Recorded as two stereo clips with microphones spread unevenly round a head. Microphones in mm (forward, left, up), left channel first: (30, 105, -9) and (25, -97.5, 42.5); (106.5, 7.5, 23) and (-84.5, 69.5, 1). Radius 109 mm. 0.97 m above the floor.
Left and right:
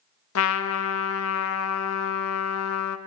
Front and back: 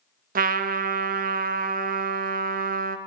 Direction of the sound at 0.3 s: 110° left.